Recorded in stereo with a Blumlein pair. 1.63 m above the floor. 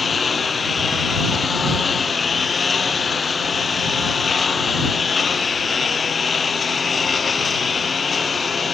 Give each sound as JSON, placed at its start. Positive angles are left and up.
{"t": 0.0, "sound": "a lawn mower", "azimuth_deg": 15}